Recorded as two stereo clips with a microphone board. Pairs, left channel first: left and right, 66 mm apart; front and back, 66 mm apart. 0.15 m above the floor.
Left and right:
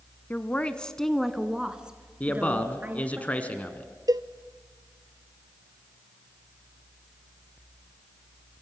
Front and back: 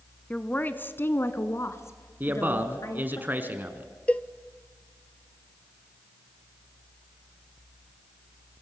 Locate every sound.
0.3 s a woman speaking: 55° left, 1.2 m; by 3.2 s 30° right, 2 m
2.2 s a man speaking: 145° left, 2.0 m
4.1 s a cowbell: 70° right, 1.0 m